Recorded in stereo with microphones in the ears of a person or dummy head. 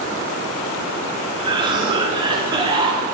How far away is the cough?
About 1.4 m.